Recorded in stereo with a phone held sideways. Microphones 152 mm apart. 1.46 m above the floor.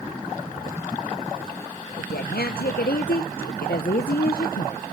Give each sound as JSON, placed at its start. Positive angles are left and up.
{"t": 2.0, "sound": "a woman speaking", "side_deg": 80, "distance_m": 0.8}